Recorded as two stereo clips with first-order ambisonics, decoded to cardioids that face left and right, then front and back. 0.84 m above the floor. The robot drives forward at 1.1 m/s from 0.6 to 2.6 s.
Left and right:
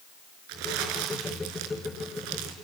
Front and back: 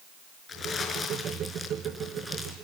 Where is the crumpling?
70° right, 5.5 m; by 2.5 s 95° right, 5.5 m.